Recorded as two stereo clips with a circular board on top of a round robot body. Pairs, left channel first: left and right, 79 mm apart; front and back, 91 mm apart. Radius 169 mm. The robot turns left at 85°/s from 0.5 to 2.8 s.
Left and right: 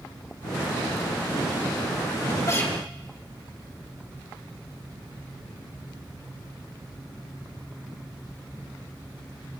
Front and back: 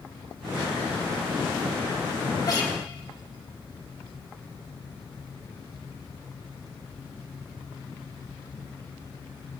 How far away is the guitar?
About 3 m.